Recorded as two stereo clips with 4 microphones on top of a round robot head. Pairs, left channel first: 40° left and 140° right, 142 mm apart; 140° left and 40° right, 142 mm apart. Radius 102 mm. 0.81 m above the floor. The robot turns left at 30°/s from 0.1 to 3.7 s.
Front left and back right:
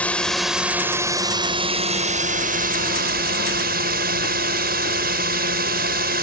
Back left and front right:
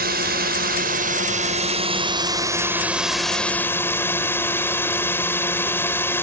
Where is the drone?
40° right; by 6.2 s 145° right.